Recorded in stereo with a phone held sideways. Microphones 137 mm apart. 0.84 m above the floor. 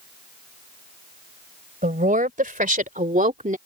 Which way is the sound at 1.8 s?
85° right.